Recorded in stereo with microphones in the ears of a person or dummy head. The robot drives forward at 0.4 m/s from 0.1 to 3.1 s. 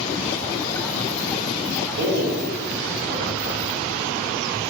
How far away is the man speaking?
About 0.9 m.